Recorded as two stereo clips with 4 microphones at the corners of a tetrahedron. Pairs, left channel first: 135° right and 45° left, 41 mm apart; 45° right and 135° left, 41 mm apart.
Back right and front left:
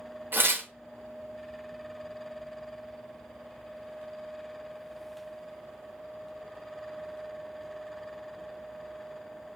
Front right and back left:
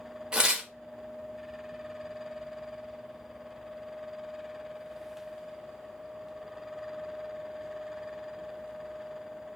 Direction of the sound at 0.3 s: 65° left.